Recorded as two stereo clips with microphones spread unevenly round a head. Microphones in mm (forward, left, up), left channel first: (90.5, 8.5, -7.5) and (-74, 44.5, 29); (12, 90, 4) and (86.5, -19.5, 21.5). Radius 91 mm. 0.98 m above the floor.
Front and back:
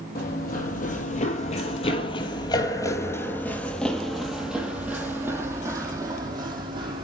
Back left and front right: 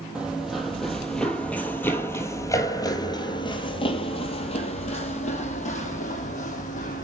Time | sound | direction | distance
0.1 | running footsteps | 25° left | 2.5 m